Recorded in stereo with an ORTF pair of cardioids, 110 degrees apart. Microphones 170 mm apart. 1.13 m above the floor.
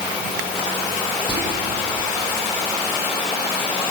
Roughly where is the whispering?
Ahead left.